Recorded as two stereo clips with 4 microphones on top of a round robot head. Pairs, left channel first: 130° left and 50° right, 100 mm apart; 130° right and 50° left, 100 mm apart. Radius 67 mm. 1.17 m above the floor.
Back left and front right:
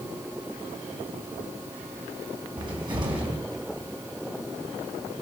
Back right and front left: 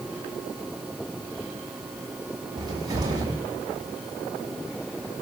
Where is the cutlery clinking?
I don't hear cutlery clinking.